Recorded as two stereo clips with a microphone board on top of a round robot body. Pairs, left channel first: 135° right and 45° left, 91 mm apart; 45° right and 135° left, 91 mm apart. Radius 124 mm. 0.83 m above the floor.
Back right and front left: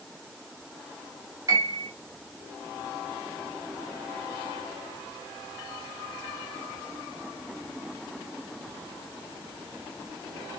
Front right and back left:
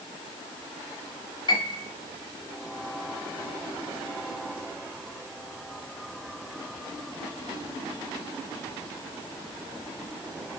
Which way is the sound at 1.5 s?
10° right.